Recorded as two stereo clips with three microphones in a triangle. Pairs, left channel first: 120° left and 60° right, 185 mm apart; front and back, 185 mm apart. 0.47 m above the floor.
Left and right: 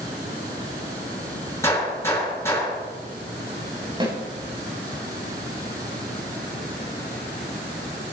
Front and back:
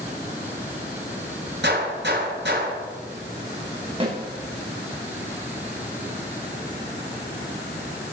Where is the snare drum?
125° right, 8 m.